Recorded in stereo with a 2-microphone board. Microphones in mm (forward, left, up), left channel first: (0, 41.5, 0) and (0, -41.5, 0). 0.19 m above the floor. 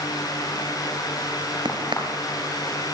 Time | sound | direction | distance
1.6 | a crack | 70° right (ahead or behind) | 3.5 m